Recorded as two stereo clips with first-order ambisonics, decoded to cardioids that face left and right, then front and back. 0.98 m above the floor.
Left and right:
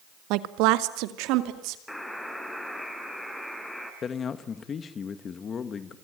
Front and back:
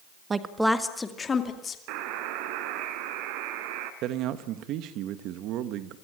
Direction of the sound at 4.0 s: 150° left.